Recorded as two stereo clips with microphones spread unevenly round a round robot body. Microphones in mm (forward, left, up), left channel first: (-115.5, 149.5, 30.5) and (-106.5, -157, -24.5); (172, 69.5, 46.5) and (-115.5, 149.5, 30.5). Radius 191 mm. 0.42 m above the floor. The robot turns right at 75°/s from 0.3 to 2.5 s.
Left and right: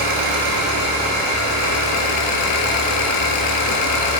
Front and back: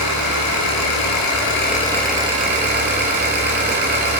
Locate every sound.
0.0 s an engine running: 60° right, 2 m; by 4.2 s 105° left, 2 m